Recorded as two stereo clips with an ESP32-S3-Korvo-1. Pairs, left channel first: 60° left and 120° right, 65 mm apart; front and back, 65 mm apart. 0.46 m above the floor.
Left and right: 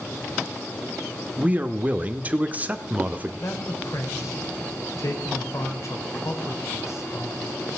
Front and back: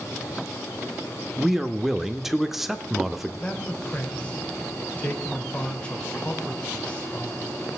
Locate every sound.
1.4 s a man speaking: 100° right, 0.9 m
3.4 s a man speaking: 65° left, 2.5 m